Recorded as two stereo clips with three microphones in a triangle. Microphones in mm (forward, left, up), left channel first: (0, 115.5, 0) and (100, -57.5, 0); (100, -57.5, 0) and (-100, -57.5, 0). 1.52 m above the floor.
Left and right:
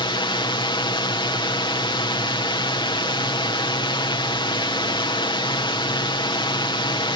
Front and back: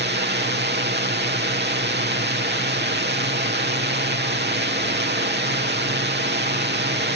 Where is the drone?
Straight behind.